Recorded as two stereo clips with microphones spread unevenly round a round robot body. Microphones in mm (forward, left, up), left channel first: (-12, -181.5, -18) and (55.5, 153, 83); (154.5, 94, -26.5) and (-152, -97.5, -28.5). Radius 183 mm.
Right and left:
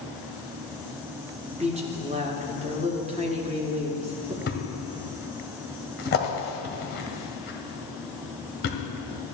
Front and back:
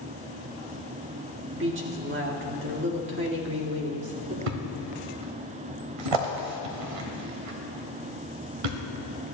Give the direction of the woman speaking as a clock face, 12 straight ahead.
7 o'clock.